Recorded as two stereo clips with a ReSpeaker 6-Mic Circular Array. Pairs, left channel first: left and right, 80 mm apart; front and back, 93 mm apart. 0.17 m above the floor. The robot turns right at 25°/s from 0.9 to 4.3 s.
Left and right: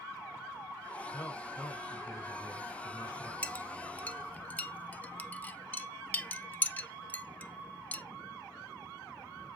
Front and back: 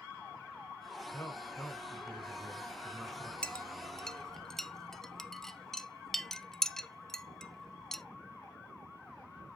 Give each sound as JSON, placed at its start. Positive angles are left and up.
{"t": 1.1, "sound": "a man speaking", "azimuth_deg": 40, "distance_m": 1.9}
{"t": 3.4, "sound": "a clink", "azimuth_deg": 55, "distance_m": 0.6}